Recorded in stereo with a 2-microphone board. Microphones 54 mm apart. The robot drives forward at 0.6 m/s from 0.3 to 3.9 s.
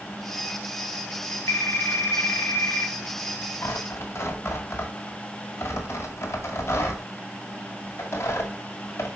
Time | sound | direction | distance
1.5 | a phone ringing | 65° left (ahead or behind) | 1.4 m
3.6 | tearing paper | 55° left (ahead or behind) | 2 m